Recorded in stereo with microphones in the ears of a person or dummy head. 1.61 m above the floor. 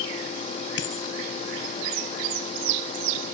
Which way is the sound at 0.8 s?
70° left (ahead or behind).